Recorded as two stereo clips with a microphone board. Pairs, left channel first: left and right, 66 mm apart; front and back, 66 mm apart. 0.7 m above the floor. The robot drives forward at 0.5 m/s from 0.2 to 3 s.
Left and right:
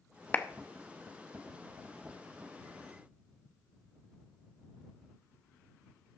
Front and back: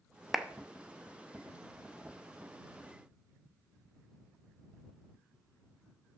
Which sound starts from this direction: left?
A clap, at 0.3 s.